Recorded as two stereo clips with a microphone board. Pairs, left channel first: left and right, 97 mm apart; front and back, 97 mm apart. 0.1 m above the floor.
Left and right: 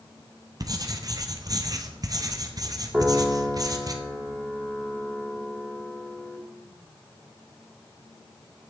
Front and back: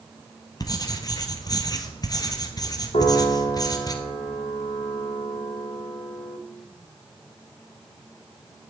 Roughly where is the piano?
Ahead.